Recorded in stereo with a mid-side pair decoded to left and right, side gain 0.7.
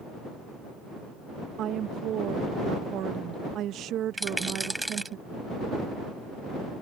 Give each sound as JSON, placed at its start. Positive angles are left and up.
{"t": 1.6, "sound": "a woman speaking", "azimuth_deg": -50}
{"t": 4.2, "sound": "a rattle", "azimuth_deg": -5}